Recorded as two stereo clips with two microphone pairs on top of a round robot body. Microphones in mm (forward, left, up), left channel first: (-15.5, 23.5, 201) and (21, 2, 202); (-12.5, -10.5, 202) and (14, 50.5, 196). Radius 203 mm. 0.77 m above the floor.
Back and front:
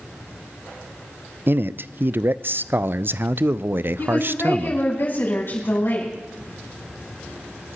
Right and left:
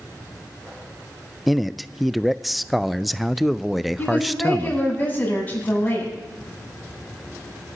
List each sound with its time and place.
1.5 s a man speaking: 15° right, 0.5 m
4.0 s a woman speaking: straight behind, 7.5 m